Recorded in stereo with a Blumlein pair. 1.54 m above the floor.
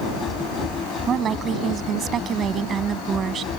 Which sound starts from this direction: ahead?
A machine running, at 0.0 s.